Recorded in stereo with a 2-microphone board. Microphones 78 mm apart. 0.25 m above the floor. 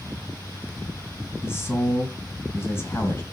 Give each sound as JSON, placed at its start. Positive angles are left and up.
{"t": 1.4, "sound": "a man speaking", "side_deg": 30, "distance_m": 1.9}